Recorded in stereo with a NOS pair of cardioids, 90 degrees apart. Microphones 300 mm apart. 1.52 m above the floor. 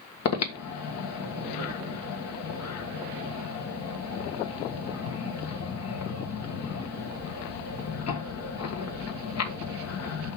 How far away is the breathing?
About 1.6 m.